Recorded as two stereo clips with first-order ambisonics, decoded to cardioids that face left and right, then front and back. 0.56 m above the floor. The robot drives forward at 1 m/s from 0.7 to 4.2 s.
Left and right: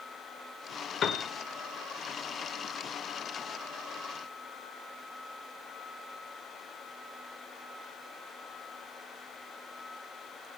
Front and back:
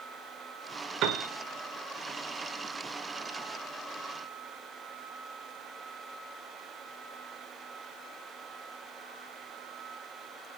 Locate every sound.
1.0 s a piano: 145° left, 1.8 m; by 1.3 s 150° left, 2 m